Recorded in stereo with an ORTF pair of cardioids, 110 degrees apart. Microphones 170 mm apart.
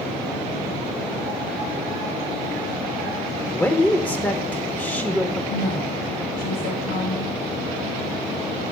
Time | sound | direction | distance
3.5 | a man speaking | 5° left | 0.8 m
5.5 | a woman speaking | 65° left | 1.4 m